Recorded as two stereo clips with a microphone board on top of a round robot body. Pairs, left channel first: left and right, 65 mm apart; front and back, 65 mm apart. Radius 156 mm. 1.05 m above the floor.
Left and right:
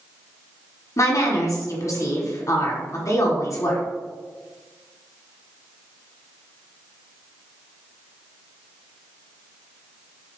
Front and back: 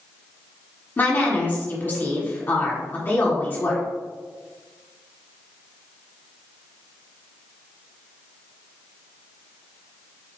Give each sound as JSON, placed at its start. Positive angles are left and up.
{"t": 1.0, "sound": "a woman speaking", "azimuth_deg": 55, "distance_m": 1.4}